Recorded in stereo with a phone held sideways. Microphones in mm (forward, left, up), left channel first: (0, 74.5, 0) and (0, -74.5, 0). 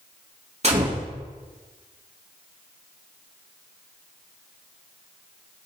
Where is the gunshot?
45° right (ahead or behind), 2 m.